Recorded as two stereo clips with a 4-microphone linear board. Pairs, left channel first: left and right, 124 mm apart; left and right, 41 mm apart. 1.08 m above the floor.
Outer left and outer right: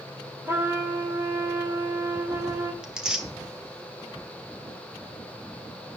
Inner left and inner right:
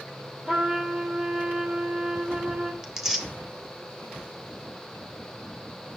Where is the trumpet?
20° right (ahead or behind), 2.5 m.